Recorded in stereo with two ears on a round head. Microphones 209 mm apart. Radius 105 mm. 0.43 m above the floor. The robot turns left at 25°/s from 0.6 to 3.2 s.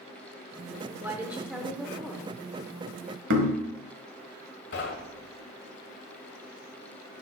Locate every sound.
1.0 s a woman speaking: 10° right (ahead or behind), 0.9 m; by 2.4 s 5° left (ahead or behind), 0.9 m
3.3 s knocking: 50° right (ahead or behind), 1.3 m
4.7 s knocking: 50° left (ahead or behind), 1.4 m